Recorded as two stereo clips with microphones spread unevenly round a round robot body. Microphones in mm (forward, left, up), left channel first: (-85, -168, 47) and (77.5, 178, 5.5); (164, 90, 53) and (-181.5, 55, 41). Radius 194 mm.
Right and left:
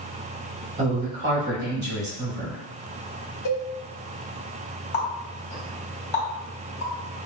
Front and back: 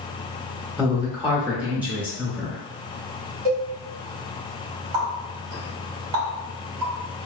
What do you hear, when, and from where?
0.8 s a woman speaking: 105° left, 1.2 m
3.5 s a cowbell: 160° right, 1.0 m
4.9 s a running tap: 170° right, 2.0 m